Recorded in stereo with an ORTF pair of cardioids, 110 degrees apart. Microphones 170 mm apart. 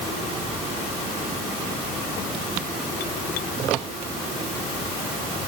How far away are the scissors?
I don't hear scissors.